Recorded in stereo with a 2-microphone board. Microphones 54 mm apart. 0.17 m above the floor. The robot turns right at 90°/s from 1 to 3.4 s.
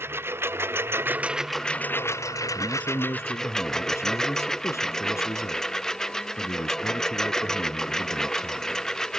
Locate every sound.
0.0 s a lawn mower: 45° right; by 9.2 s 170° left
2.5 s a man speaking: 5° left; by 8.8 s 85° left